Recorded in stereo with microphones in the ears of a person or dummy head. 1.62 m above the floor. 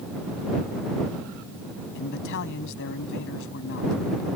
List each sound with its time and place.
1.9 s a man speaking: 70° left (ahead or behind)